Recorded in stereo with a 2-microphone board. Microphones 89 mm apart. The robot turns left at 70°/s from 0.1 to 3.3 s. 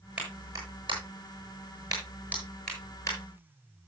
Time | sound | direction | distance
0.2 | a clap | 10° right (ahead or behind) | 7.5 m